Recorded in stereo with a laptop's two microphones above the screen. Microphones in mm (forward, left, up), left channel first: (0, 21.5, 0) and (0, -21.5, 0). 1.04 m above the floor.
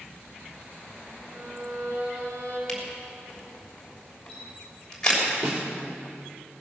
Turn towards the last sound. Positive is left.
turn(degrees=-40)  # may be behind; listen again after turning